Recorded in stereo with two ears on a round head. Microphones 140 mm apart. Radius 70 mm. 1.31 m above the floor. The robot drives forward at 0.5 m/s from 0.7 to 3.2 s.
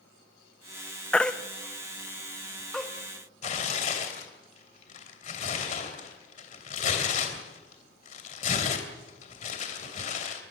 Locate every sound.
1.1 s a baby crying: 5° left (ahead or behind), 0.7 m
3.4 s tearing paper: 45° left (ahead or behind), 3 m